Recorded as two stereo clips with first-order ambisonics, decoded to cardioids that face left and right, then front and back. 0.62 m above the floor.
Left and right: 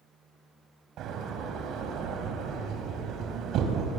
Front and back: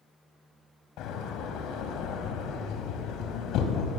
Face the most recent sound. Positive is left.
turn(degrees=-40)